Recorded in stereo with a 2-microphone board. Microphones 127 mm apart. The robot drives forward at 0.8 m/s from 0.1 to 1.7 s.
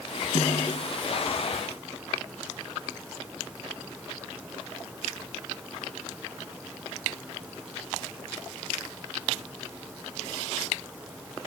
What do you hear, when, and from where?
0.3 s a snare drum: 60° left (ahead or behind), 2.5 m; by 1.0 s 50° left (ahead or behind), 2.5 m